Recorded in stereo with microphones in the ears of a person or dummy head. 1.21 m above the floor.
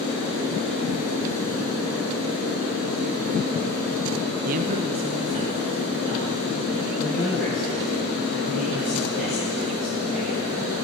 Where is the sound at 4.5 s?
50° right (ahead or behind), 0.6 m; by 7.0 s 25° right (ahead or behind), 3 m.